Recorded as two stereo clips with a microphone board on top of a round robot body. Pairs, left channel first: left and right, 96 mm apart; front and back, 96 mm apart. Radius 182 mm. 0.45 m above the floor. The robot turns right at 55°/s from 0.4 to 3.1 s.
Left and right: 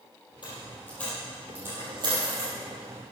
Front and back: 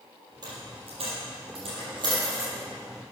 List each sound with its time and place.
0.4 s a dropped coin: 135° left, 4.5 m; by 2.5 s 110° right, 4.5 m